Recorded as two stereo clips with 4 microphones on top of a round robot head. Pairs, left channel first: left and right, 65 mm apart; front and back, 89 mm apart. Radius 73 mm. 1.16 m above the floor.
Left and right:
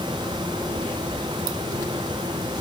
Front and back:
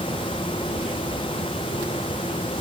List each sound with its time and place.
Only background noise.